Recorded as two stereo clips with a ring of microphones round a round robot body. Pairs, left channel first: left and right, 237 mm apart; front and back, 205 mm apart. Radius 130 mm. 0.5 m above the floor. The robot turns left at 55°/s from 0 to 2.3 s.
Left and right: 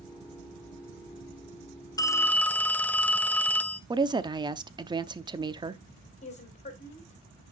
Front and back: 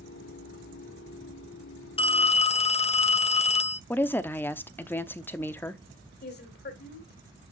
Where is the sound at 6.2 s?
30° left, 3 m.